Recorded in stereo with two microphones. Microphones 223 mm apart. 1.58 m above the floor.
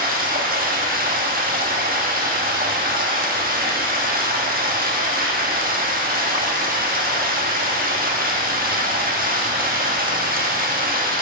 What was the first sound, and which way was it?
Running water, 40° right (ahead or behind).